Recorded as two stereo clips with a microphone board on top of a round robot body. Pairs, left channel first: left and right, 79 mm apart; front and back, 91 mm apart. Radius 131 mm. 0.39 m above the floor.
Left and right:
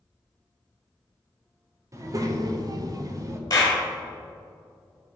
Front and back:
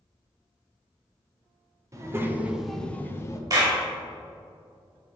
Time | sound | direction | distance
1.9 | a child speaking | 130° right | 1.3 m
3.5 | a clap | 135° left | 2 m